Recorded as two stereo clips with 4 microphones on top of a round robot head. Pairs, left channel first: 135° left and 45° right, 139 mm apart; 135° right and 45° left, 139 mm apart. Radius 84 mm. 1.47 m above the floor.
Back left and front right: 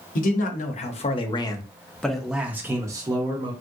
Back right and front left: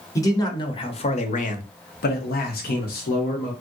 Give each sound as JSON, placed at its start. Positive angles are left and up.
{"t": 0.1, "sound": "a man speaking", "azimuth_deg": 155, "distance_m": 1.1}